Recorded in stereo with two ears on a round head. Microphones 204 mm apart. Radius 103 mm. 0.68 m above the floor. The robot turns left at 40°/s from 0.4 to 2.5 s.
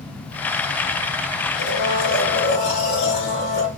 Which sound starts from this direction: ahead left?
A blender, at 1.6 s.